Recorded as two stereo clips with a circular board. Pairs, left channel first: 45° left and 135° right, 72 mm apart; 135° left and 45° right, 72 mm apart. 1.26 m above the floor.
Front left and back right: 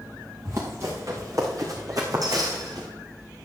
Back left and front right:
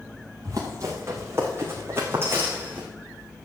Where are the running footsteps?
90° right, 4.5 m; by 2.9 s 110° right, 4 m.